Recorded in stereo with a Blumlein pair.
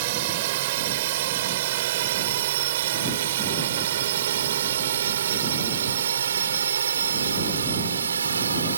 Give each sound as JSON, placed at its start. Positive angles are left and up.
{"t": 0.0, "sound": "a drone", "azimuth_deg": -50}